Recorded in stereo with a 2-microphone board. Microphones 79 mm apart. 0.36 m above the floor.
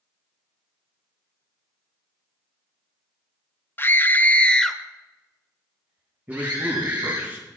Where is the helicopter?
I don't hear a helicopter.